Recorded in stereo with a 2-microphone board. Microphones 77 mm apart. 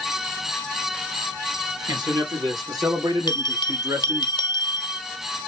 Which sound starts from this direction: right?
A man speaking, at 1.9 s.